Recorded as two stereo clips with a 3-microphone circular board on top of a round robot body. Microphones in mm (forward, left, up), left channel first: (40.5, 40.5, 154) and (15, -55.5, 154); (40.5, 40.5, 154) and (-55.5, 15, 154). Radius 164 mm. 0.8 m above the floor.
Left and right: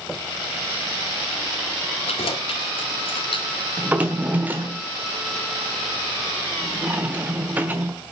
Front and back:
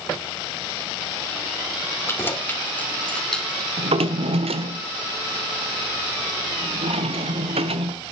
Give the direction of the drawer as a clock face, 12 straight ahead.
6 o'clock.